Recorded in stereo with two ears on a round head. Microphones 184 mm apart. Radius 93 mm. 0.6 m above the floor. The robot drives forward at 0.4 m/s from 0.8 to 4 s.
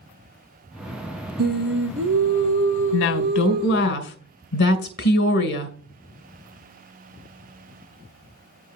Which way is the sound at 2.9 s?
65° left (ahead or behind).